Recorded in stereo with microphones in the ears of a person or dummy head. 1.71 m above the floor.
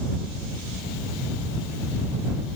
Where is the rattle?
No rattle in this recording.